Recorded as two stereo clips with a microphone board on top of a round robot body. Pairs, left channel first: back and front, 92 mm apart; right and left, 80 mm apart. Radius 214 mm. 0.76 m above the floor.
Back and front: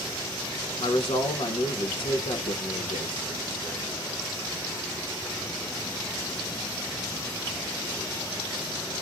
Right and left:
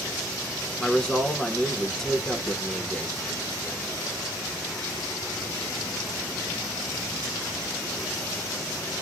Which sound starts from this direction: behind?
A man speaking, at 0.8 s.